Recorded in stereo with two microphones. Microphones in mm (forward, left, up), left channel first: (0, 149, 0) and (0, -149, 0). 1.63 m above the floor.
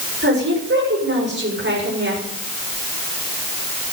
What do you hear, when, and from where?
0.2 s a woman speaking: 40° right (ahead or behind), 6.5 m